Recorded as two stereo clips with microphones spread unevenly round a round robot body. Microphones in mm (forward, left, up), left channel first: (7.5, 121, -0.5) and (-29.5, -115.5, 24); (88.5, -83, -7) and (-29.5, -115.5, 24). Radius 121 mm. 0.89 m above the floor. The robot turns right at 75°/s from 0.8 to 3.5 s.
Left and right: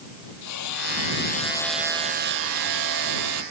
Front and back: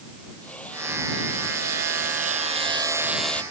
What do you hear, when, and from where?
0.4 s hammering: 100° left; by 3.4 s 60° right